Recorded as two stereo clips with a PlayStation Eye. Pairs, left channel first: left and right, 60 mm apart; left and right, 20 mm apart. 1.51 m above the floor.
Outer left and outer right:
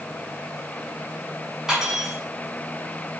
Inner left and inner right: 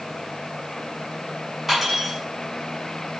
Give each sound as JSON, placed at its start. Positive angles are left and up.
{"t": 1.7, "sound": "cutlery clinking", "side_deg": -10, "distance_m": 7.5}